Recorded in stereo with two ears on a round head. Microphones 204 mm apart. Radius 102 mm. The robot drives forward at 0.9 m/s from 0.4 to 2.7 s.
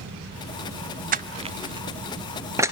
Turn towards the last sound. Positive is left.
turn(degrees=-15)  # may be behind; listen again after turning